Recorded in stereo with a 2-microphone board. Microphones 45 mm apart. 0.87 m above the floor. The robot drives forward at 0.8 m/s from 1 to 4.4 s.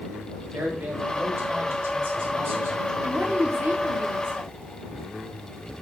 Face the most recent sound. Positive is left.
turn(degrees=-50)  # may be behind; listen again after turning